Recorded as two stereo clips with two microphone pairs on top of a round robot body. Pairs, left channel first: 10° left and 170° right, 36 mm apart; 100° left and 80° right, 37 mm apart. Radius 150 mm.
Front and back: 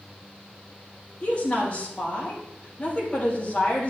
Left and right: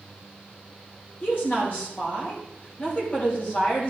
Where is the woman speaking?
65° left, 4 m.